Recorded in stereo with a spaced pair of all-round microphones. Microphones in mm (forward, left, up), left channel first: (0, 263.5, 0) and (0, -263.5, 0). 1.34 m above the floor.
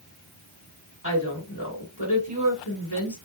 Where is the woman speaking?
30° left (ahead or behind), 1.8 m.